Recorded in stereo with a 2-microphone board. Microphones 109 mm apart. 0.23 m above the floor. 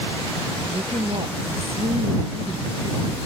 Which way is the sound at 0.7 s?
65° right (ahead or behind).